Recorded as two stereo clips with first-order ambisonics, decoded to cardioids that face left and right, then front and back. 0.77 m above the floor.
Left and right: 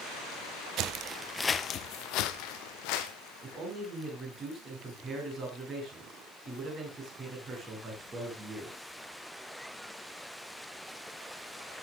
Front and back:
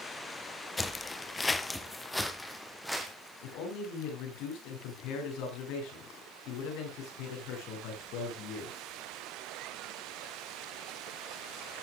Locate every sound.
0.8 s footsteps: 80° right, 1.0 m; by 3.1 s 90° left, 2.5 m
3.4 s a man speaking: 20° right, 8 m